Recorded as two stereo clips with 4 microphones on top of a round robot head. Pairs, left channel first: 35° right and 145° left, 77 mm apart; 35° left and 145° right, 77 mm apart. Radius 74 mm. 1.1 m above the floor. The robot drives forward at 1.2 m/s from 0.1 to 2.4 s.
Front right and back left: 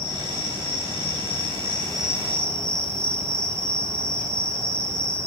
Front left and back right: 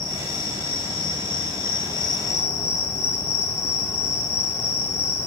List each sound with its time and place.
0.0 s an insect: 15° left, 3 m; by 5.3 s 90° left, 0.8 m